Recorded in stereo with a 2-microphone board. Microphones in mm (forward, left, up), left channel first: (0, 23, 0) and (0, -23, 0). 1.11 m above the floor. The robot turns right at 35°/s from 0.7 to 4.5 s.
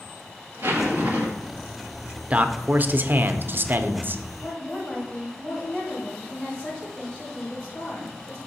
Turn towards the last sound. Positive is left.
turn(degrees=40)  # may be behind; listen again after turning